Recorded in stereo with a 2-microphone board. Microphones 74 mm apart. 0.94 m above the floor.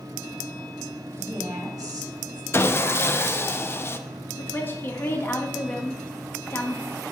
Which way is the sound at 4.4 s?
30° left (ahead or behind).